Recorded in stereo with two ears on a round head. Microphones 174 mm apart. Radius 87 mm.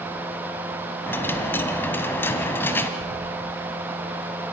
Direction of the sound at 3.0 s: 85° left.